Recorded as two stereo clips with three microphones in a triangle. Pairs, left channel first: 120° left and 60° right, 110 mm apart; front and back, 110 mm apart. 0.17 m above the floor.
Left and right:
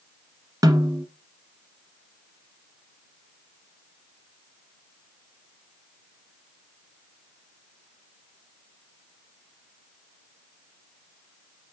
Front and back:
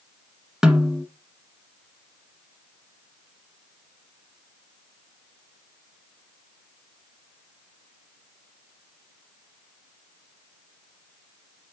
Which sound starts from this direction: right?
A snare drum, at 0.6 s.